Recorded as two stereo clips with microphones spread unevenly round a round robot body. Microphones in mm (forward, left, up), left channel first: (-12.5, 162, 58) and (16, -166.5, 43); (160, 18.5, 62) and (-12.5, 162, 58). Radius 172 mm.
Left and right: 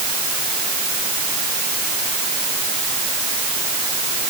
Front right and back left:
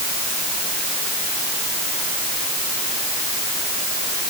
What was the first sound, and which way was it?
Only background noise.